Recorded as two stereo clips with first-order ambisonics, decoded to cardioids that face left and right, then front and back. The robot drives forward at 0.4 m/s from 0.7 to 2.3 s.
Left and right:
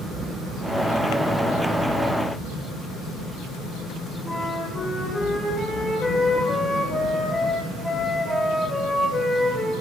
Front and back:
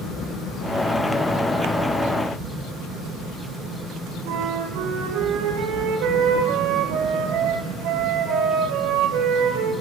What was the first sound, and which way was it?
A flute, 175° left.